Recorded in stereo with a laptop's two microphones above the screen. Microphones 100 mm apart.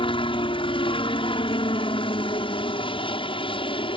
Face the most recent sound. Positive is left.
turn(degrees=60)  # may be behind; listen again after turning